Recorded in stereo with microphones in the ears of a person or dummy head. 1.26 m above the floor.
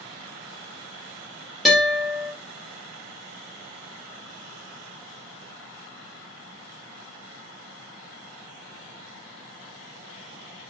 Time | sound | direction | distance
1.6 | a guitar | 5° right (ahead or behind) | 3.5 m